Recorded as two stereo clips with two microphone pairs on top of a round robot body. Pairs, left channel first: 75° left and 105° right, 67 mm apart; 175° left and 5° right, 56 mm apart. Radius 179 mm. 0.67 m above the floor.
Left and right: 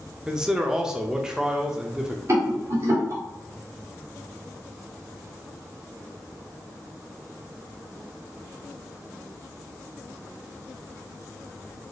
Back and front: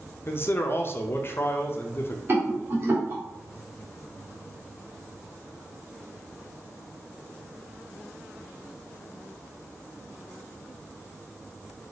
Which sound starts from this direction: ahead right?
A rattle, at 2.3 s.